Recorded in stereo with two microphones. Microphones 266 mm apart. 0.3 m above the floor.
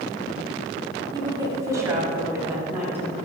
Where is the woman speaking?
15° right (ahead or behind), 1.1 m; by 3.1 s 5° right (ahead or behind), 2 m.